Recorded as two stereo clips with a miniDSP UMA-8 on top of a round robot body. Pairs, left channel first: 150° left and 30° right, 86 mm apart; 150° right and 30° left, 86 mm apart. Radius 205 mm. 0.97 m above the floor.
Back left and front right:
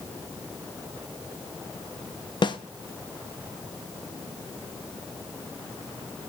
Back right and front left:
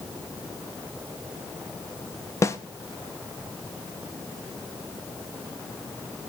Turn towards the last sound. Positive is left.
turn(degrees=160)